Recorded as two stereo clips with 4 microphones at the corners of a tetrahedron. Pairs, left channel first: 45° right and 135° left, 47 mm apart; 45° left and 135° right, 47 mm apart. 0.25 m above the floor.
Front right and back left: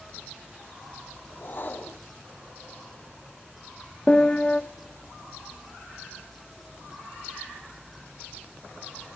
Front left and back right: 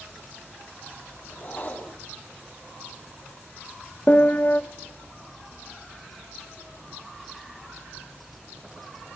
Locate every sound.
1.3 s a whoosh: 5° right, 3 m
4.1 s a piano: 10° left, 0.6 m